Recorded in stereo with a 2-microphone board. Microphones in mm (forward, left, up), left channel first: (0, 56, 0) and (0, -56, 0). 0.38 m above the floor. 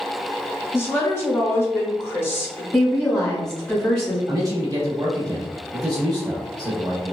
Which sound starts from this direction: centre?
A woman speaking, at 2.7 s.